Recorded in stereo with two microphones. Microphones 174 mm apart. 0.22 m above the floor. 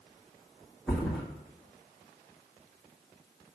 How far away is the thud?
About 2 m.